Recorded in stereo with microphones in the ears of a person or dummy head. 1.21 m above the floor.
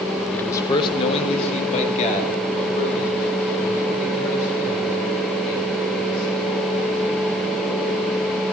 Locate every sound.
0.3 s a man speaking: 5° left (ahead or behind), 0.5 m; by 6.4 s 45° left (ahead or behind), 6 m